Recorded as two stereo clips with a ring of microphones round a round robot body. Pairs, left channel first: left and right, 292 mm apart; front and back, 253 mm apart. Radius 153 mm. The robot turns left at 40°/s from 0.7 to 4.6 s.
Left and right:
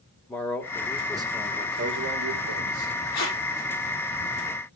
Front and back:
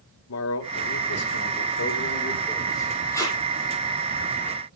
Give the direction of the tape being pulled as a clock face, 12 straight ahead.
9 o'clock.